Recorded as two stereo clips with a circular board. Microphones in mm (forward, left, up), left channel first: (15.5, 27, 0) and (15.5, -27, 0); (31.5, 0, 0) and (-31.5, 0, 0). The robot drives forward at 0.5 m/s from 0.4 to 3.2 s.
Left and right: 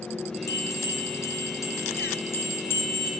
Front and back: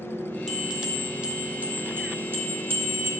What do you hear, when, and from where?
0.5 s a bell: 95° left, 1.4 m; by 3.1 s 135° left, 2.0 m